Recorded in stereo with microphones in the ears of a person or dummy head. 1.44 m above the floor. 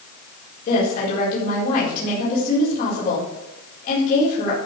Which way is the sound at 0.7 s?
50° left (ahead or behind).